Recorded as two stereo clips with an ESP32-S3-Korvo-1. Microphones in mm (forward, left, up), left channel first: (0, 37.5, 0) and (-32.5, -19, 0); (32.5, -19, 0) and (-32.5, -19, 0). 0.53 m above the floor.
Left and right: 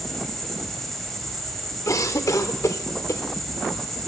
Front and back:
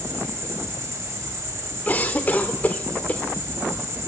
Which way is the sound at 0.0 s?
145° left.